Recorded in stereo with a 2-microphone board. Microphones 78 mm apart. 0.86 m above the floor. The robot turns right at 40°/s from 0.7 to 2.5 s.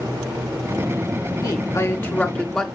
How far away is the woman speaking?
About 2.5 m.